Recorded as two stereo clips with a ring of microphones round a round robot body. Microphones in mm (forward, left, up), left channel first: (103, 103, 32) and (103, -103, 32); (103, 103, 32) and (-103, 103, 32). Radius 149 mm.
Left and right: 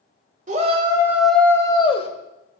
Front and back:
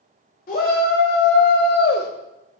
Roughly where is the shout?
Ahead right.